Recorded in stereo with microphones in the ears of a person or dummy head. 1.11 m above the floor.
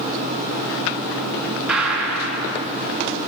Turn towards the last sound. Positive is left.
turn(degrees=-5)  # may be behind; listen again after turning